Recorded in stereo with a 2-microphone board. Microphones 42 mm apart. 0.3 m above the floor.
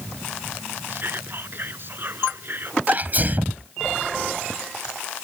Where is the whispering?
55° right (ahead or behind).